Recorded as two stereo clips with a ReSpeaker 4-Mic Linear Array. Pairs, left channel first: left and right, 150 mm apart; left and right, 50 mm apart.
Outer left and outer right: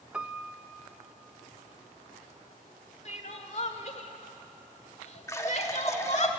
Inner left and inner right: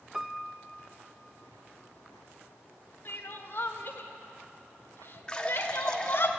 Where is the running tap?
20° left (ahead or behind), 1.3 m.